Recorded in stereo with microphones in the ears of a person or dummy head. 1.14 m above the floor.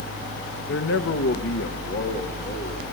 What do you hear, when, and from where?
0.7 s a man speaking: 55° left (ahead or behind), 1.1 m